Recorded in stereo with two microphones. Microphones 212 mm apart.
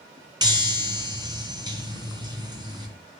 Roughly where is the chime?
Right.